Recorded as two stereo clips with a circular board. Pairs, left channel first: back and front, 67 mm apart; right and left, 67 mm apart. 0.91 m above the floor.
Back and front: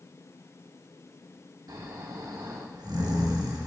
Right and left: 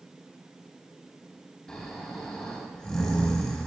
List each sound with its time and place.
1.7 s snoring: 15° right, 1.0 m